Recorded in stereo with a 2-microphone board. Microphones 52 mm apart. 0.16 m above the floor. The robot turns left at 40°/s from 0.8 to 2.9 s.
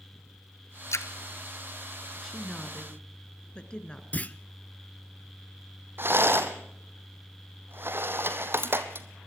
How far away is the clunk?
About 0.6 m.